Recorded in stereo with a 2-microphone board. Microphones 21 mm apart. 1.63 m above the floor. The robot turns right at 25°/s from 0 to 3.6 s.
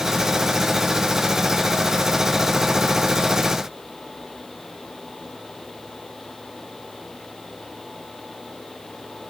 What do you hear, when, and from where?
Only background noise.